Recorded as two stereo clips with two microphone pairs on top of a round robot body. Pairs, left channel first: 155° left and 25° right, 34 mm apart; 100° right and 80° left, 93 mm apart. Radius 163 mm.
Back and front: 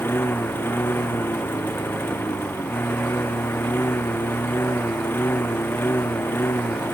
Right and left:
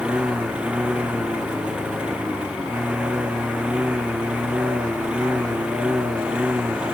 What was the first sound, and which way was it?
A lawn mower, 155° left.